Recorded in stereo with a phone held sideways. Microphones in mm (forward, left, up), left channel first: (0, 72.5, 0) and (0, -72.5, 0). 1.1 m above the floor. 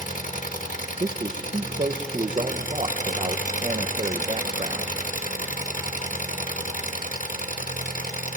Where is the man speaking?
45° right (ahead or behind), 0.8 m.